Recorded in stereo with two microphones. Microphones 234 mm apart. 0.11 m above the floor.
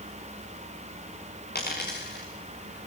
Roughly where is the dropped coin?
Left.